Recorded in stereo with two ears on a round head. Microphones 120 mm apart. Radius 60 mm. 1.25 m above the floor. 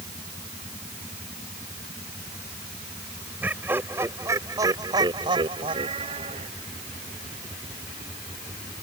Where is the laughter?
15° right (ahead or behind); by 6.5 s 50° right (ahead or behind).